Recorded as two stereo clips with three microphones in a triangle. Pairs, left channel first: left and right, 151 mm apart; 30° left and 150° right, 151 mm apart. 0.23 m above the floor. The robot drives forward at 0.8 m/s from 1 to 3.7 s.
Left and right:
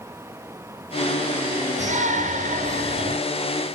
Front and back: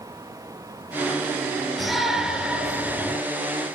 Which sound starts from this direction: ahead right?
A shout, at 1.8 s.